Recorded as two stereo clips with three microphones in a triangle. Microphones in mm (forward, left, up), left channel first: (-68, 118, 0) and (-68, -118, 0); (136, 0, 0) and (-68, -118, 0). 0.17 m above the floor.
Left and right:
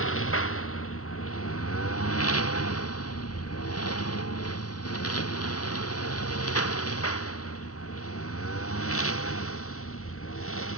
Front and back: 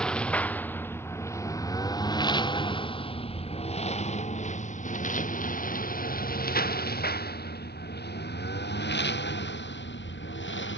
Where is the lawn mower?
115° left; by 10.8 s 65° left.